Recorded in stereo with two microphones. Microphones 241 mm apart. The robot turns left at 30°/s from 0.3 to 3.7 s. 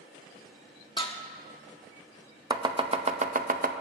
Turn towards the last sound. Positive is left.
turn(degrees=-40)  # may be behind; listen again after turning